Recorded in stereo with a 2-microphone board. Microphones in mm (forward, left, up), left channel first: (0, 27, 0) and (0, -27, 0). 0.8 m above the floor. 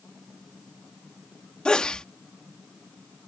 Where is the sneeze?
20° left (ahead or behind).